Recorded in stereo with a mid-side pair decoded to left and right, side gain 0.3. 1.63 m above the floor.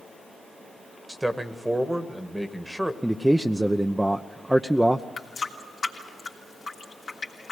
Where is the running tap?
60° left, 3 m.